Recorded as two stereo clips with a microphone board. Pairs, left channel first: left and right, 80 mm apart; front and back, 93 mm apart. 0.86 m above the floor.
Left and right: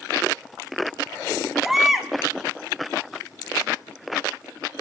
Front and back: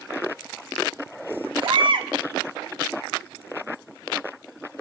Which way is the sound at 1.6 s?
175° right.